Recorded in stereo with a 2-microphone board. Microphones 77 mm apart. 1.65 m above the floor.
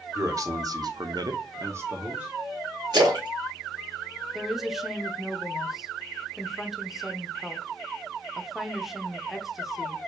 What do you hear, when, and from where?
0.1 s a man speaking: 45° right (ahead or behind), 1.1 m; by 2.3 s 15° right (ahead or behind), 1.0 m
2.9 s a splash: 65° right (ahead or behind), 1.9 m
4.3 s a woman speaking: 5° right (ahead or behind), 0.8 m